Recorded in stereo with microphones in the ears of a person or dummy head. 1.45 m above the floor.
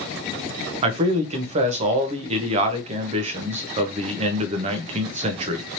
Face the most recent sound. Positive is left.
turn(degrees=-35)  # may be behind; listen again after turning